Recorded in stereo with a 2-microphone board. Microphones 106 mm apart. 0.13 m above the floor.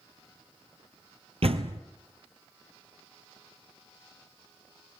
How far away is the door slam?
About 2.0 m.